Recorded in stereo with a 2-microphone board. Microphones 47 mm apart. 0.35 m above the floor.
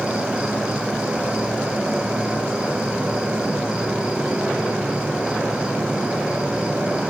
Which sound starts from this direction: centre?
An insect, at 0.0 s.